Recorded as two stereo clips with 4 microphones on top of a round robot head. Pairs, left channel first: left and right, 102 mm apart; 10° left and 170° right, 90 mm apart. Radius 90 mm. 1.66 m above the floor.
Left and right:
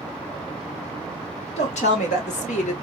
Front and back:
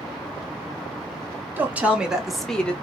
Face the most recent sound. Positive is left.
turn(degrees=85)